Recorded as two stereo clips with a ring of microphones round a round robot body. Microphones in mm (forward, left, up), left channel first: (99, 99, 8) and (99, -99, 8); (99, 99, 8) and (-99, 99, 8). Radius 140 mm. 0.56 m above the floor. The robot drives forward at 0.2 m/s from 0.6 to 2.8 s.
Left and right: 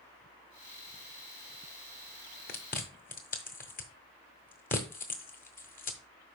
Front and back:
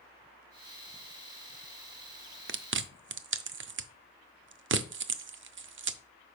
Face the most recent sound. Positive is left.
turn(degrees=150)